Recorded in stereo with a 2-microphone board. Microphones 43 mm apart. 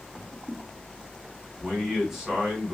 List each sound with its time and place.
1.6 s a man speaking: 5° right (ahead or behind), 1.6 m